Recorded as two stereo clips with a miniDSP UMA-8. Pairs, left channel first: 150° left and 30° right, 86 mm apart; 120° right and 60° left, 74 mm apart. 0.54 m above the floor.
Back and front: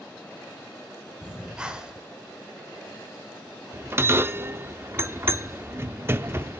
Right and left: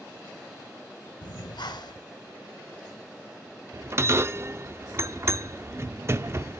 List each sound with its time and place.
1.2 s breathing: 110° right, 0.8 m
3.7 s a bell: 20° left, 0.6 m